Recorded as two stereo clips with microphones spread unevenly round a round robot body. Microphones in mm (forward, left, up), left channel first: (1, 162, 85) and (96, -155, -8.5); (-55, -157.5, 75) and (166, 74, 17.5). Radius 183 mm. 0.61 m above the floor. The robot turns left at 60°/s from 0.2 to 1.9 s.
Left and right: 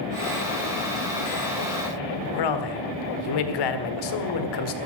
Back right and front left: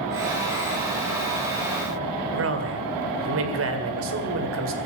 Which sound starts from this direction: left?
A man speaking, at 2.3 s.